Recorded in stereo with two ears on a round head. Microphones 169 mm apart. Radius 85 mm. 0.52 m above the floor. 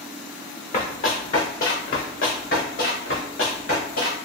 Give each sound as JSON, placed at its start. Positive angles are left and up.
{"t": 0.7, "sound": "running footsteps", "side_deg": 40, "distance_m": 2.0}